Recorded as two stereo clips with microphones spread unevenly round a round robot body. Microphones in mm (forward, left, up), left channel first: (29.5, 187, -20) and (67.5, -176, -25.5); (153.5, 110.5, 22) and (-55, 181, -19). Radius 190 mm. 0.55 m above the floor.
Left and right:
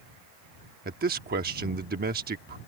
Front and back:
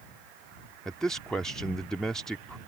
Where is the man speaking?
125° right.